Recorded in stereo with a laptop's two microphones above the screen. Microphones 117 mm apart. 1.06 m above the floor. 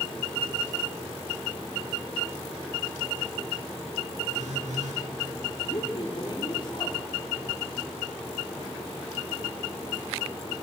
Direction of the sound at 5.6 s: 45° left (ahead or behind).